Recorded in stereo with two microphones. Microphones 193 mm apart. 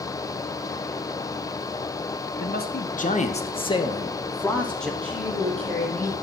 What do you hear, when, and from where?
2.4 s a man speaking: 55° left (ahead or behind), 1.3 m; by 4.9 s 5° left (ahead or behind), 1.7 m
5.0 s a woman speaking: 5° left (ahead or behind), 5 m